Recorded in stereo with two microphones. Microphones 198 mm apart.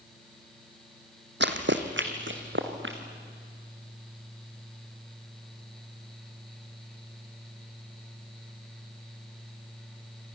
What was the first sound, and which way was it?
Running footsteps, 65° right (ahead or behind).